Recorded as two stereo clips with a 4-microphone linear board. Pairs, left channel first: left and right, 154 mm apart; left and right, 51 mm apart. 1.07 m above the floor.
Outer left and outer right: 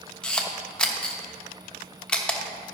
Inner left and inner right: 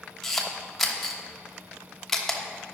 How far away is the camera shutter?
About 0.9 m.